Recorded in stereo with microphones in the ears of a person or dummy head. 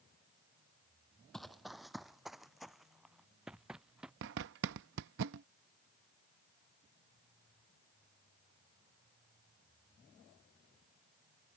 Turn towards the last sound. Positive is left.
turn(degrees=-60)  # may be behind; listen again after turning